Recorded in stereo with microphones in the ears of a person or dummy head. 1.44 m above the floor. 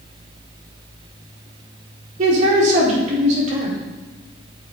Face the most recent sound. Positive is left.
turn(degrees=-50)  # may be behind; listen again after turning